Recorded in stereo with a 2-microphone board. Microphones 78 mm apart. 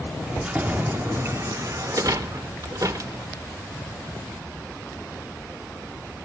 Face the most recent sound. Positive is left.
turn(degrees=-45)  # may be behind; listen again after turning